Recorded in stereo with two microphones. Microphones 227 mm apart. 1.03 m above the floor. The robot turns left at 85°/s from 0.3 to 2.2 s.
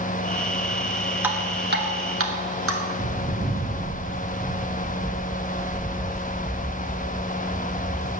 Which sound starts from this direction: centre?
Dripping, at 1.2 s.